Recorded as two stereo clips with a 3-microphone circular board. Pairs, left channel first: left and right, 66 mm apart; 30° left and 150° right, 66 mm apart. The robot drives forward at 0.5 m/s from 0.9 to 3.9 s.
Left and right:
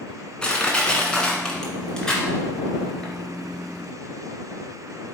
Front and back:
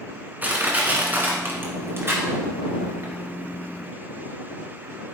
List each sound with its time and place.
0.4 s crushing: 160° left, 1.5 m; by 3.1 s 170° left, 2.5 m